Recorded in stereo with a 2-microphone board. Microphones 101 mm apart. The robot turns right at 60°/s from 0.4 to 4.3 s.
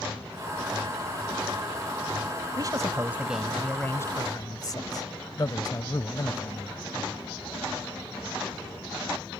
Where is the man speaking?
55° right; by 7.1 s 50° left.